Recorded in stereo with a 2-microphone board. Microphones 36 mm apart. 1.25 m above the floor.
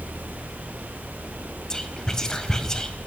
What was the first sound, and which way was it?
Whispering, 15° left (ahead or behind).